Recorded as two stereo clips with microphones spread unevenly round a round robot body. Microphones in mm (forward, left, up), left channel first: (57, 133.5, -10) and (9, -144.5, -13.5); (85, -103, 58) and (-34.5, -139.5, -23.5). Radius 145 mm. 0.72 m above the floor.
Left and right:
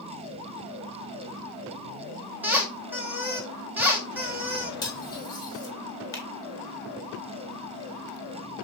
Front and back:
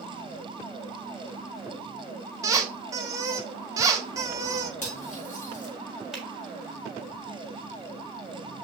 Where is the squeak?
175° left, 0.6 m.